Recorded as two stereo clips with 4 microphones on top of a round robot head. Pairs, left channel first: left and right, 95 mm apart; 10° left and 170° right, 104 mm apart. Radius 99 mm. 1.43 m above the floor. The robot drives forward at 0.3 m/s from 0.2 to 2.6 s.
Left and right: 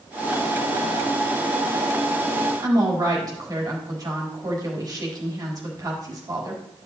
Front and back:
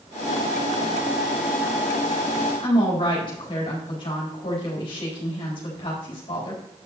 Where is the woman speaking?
40° right, 4 m.